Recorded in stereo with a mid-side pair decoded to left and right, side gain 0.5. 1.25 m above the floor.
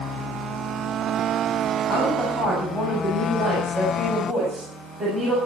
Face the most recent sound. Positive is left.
turn(degrees=-30)